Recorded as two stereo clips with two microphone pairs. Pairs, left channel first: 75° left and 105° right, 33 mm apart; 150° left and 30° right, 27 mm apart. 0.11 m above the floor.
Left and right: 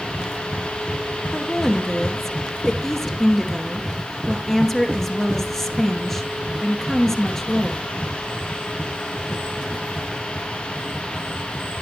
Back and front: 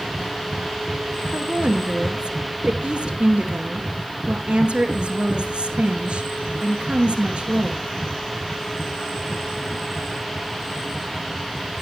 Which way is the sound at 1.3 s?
Straight ahead.